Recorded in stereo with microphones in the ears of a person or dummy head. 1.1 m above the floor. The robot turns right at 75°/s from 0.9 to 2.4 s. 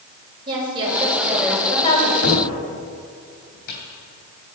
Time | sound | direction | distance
0.5 | a woman speaking | 25° right | 5 m
2.2 | a cupboard door | 65° left (ahead or behind) | 3 m